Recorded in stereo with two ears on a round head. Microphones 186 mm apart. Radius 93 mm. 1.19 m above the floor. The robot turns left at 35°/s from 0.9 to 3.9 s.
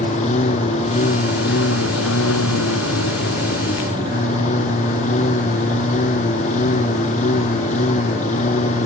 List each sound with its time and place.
0.0 s a lawn mower: 145° left; by 8.9 s 40° left